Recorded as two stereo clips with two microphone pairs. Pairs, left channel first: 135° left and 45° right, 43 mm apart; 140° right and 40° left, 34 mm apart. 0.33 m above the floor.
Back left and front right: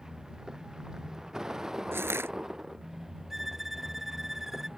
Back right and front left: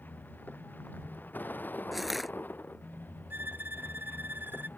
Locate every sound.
0.0 s a vehicle: 120° right; by 4.8 s 125° right
1.9 s crushing: 50° right
3.3 s a violin: 40° left